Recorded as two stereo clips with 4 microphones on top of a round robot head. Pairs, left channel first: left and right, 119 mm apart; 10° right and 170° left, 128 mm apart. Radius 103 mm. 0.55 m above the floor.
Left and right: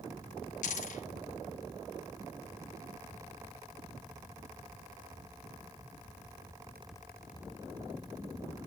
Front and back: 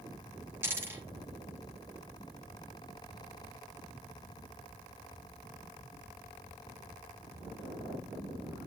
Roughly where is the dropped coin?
Left.